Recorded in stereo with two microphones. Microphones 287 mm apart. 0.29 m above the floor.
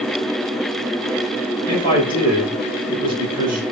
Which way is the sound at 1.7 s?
30° left (ahead or behind).